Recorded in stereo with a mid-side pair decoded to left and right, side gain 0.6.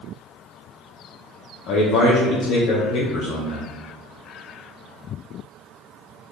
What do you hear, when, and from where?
1.7 s a man speaking: 60° left, 0.8 m